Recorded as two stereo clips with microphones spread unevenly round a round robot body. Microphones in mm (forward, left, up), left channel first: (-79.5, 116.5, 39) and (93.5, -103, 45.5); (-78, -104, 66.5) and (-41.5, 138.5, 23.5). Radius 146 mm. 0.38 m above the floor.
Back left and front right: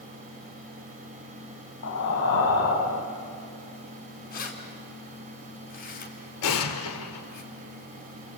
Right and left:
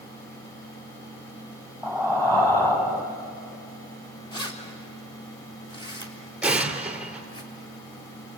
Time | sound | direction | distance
1.8 | breathing | 175° left | 3.5 m
4.3 | keys jangling | 170° right | 3.5 m
6.4 | an explosion | 170° left | 2 m